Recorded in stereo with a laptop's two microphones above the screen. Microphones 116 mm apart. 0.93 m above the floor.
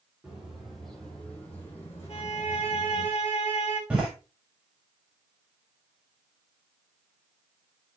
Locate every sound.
0.2 s footsteps: 10° right (ahead or behind), 2 m; by 3.1 s 35° left (ahead or behind), 3 m
2.1 s a violin: 55° left (ahead or behind), 2 m
3.9 s a door slam: 10° right (ahead or behind), 3 m